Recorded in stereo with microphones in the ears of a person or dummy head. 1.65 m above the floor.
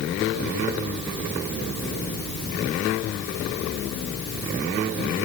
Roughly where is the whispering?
I don't hear whispering.